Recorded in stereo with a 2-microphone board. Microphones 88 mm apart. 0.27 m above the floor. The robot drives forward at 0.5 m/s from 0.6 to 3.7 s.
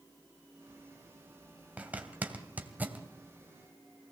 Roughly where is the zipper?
Centre.